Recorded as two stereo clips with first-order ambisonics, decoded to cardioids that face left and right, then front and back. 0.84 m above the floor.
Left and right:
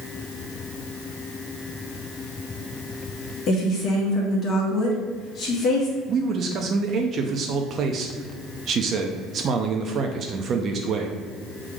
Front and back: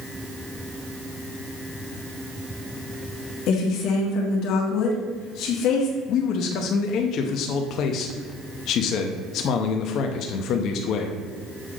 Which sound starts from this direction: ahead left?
A woman speaking, at 3.5 s.